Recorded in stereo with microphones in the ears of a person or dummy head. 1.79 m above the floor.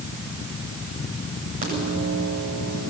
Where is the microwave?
45° right (ahead or behind), 9 m.